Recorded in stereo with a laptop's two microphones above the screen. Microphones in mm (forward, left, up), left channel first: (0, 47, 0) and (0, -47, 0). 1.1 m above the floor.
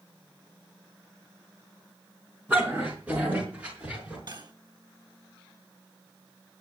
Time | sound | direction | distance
2.5 | a dog barking | 15° right (ahead or behind) | 5 m
4.3 | cutlery clinking | 50° right (ahead or behind) | 3.5 m